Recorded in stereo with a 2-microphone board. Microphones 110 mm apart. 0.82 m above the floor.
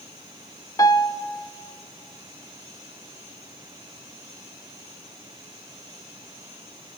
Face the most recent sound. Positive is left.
turn(degrees=30)  # may be behind; listen again after turning